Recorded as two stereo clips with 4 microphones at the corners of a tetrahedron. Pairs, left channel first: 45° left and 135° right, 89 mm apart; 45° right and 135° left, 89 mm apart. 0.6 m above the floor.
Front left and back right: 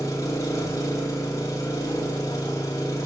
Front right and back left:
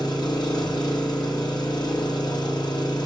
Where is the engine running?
10° right, 1.8 m.